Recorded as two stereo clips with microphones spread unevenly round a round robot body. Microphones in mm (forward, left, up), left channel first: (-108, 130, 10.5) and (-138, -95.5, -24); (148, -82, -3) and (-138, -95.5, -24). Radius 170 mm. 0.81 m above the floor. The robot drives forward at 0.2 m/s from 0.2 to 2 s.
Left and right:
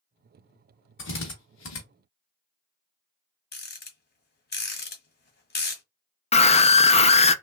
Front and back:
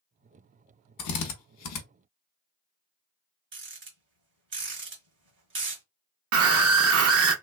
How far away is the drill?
About 0.7 m.